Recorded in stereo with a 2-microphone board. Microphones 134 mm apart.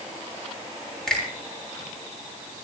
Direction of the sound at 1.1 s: 5° left (ahead or behind).